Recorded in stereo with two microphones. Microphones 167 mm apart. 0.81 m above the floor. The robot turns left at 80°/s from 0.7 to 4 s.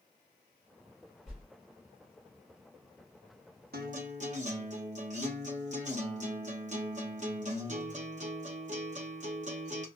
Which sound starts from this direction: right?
A guitar, at 3.7 s.